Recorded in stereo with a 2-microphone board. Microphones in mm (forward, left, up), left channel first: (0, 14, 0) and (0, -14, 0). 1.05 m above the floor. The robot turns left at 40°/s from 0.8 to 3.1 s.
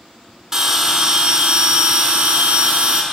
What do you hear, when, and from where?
0.5 s a bell: 20° right, 1.3 m; by 3.0 s 110° right, 1.3 m